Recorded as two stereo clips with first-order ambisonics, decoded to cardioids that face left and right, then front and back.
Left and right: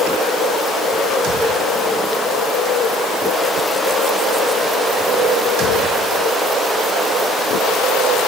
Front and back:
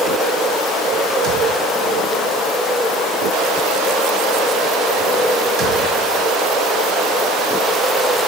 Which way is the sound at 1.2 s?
135° right.